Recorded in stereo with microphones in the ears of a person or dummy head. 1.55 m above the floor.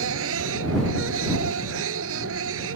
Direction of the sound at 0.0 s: 85° right.